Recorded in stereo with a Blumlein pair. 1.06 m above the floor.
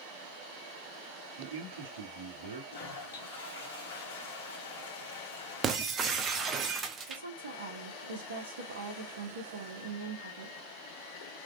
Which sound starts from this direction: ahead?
Breaking glass, at 5.6 s.